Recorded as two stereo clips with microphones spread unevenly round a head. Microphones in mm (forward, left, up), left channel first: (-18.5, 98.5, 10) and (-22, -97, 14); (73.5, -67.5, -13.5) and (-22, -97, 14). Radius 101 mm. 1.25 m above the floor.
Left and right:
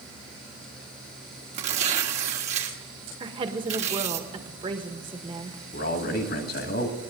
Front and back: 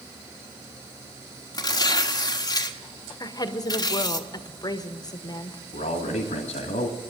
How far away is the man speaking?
About 1.8 m.